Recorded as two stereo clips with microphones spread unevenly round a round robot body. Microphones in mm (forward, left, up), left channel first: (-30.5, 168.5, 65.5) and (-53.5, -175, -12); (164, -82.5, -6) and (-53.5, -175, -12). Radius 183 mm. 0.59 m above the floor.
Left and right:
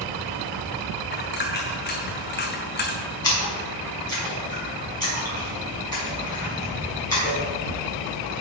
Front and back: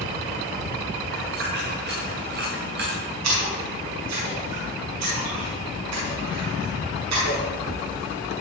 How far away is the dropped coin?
About 2.5 m.